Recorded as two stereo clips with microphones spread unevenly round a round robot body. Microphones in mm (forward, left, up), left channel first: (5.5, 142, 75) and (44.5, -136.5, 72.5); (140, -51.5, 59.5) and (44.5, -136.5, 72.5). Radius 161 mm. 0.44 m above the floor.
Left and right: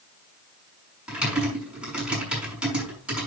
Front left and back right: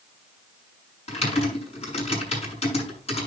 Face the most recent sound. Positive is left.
turn(degrees=5)